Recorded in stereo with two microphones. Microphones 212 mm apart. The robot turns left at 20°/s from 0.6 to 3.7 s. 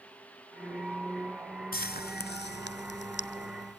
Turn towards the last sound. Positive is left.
turn(degrees=55)  # may be behind; listen again after turning